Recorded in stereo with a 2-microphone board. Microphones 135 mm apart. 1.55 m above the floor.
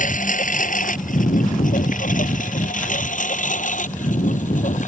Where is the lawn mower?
80° left; by 4.9 s 70° left (ahead or behind).